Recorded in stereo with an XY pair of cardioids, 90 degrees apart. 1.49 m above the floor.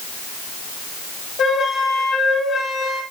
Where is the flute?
65° left, 6 m.